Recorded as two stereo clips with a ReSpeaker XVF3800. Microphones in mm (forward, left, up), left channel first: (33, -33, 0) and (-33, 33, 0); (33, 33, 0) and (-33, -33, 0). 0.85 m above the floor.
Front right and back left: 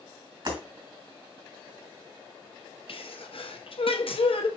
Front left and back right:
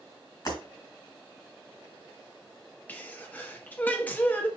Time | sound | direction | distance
0.5 | breaking glass | 95° left | 3 m
2.9 | a sneeze | 30° right | 0.8 m